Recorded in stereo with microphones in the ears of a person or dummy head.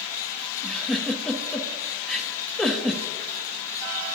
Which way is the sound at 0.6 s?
5° left (ahead or behind).